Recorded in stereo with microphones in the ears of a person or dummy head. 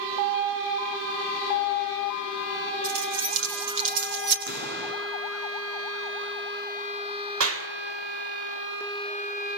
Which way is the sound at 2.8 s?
80° right.